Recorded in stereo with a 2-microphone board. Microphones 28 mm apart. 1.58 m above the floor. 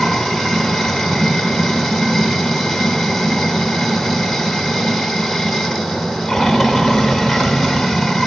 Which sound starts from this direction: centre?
Running water, at 0.0 s.